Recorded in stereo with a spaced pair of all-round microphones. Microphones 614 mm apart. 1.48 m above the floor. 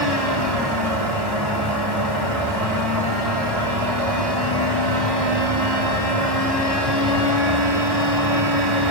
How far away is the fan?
About 4.5 m.